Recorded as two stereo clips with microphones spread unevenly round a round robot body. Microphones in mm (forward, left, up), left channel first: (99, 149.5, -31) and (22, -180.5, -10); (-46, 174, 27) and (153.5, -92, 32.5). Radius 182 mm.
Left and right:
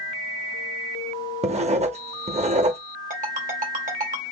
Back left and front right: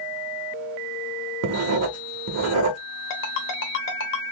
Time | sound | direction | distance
1.4 | writing | 45° right | 0.7 m
3.1 | a ringtone | 175° right | 0.7 m